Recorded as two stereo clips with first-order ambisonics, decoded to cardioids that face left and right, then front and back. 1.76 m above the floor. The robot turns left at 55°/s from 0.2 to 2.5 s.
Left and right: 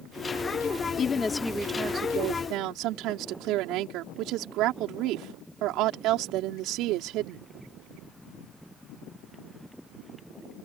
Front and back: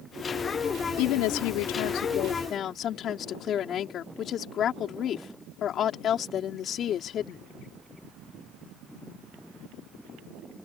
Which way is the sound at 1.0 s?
30° left.